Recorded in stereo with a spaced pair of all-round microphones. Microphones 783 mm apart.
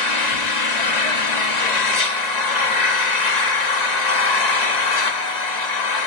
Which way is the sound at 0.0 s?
60° left (ahead or behind).